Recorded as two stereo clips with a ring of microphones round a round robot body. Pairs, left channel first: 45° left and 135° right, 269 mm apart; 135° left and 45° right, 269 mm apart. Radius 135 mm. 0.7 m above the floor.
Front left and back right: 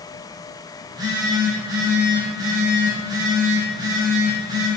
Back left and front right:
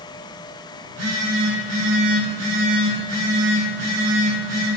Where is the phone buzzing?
60° right, 3.5 m.